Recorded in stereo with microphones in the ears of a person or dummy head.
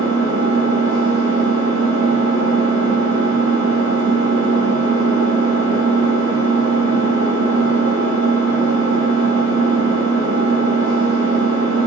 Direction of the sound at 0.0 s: 85° right.